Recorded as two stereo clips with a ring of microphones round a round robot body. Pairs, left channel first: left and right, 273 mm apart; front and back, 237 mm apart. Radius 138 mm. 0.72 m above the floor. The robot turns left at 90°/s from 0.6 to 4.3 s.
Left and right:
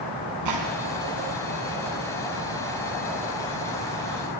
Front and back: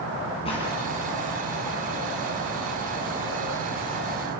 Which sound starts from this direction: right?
A gunshot, at 0.5 s.